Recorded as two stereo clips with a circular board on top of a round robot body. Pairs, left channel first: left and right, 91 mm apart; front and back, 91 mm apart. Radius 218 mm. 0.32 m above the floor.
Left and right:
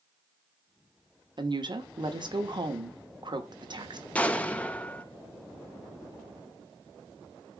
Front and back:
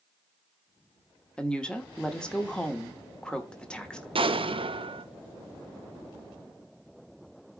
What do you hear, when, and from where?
1.4 s a woman speaking: 80° right, 1.7 m
4.2 s an explosion: 165° left, 0.9 m